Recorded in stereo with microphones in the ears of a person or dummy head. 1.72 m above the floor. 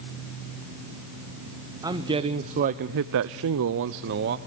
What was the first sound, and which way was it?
A man speaking, 10° right (ahead or behind).